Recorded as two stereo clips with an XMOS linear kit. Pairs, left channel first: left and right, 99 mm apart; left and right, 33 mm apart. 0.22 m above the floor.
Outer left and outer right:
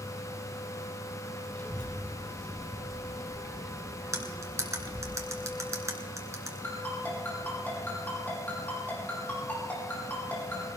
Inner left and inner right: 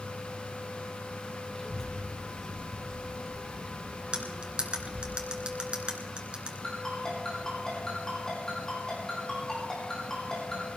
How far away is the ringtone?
About 5.5 m.